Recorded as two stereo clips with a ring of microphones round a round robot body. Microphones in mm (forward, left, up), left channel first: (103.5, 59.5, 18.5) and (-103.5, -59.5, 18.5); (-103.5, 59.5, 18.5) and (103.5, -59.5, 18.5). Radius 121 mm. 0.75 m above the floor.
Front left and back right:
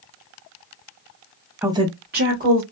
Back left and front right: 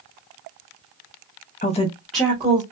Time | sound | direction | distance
1.6 | a woman speaking | 130° left | 0.8 m